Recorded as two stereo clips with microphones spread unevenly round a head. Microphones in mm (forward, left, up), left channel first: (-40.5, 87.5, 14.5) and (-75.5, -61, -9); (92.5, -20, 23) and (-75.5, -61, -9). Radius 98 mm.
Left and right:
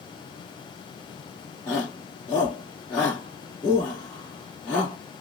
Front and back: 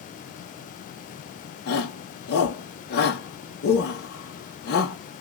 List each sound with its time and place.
1.7 s a shout: 10° right, 1.4 m